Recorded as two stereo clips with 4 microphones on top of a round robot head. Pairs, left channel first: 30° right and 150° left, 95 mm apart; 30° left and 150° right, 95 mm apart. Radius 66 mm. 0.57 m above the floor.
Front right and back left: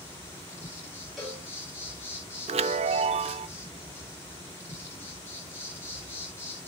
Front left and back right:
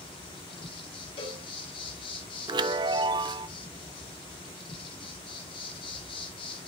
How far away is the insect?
About 3.5 m.